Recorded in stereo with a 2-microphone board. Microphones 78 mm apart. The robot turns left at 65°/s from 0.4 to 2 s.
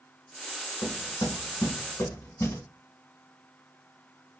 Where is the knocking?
50° left (ahead or behind), 1.4 m; by 2.6 s 40° left (ahead or behind), 1.4 m.